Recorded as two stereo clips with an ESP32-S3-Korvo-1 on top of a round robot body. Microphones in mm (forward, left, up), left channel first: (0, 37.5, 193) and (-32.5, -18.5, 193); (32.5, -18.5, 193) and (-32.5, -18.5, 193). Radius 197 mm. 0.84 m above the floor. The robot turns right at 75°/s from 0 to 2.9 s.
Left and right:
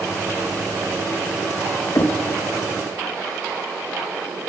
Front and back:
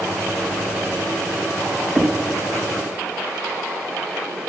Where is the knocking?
100° left, 0.8 m; by 2.2 s 115° left, 0.8 m.